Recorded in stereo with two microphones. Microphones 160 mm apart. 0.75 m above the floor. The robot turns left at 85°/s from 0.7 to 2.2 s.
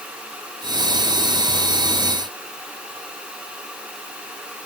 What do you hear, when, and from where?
Only background noise.